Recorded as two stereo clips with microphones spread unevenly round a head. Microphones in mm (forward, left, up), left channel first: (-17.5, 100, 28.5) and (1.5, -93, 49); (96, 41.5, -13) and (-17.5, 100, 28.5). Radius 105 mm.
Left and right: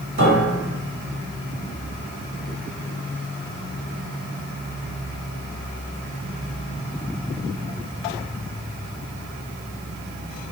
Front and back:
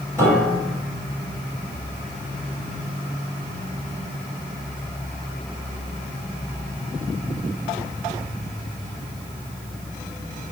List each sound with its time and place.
0.2 s a piano: 110° right, 2 m